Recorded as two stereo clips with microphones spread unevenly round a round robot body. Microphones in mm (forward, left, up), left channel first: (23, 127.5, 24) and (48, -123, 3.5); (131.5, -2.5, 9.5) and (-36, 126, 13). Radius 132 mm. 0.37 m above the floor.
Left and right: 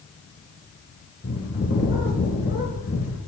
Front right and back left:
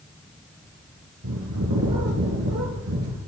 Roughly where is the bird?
Behind left.